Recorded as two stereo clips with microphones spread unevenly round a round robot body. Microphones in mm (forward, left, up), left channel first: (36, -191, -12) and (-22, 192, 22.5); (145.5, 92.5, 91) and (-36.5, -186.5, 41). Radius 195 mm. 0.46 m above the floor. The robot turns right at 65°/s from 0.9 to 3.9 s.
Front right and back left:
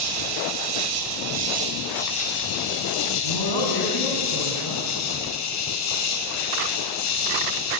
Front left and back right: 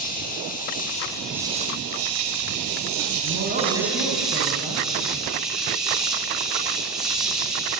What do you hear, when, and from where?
0.0 s an insect: 125° left, 3.5 m; by 7.8 s 40° right, 3.5 m
3.2 s a man speaking: 80° right, 3.5 m; by 4.9 s 35° right, 3.5 m